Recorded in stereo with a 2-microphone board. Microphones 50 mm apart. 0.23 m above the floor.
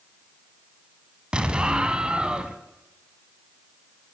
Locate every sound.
1.3 s an explosion: 20° right (ahead or behind), 1.5 m